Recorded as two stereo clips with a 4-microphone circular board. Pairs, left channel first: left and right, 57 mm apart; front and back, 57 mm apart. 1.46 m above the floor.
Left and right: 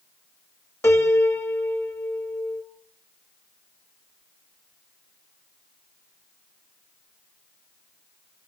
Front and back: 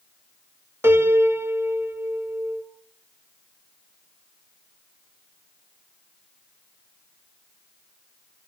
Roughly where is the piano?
Behind left.